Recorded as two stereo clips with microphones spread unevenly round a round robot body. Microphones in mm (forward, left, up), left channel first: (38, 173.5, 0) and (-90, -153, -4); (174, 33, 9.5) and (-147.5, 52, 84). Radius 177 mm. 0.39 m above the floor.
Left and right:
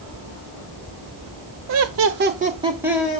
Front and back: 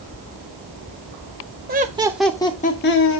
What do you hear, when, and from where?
1.7 s laughter: 120° right, 1.0 m; by 3.2 s 20° right, 1.3 m